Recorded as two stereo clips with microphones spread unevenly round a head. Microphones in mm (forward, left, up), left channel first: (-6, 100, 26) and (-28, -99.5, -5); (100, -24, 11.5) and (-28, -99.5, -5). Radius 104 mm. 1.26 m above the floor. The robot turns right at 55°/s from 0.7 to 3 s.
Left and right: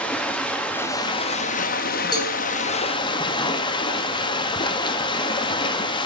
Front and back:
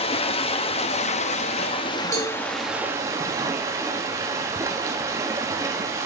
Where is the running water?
10° left, 0.8 m; by 6.1 s 135° left, 0.8 m.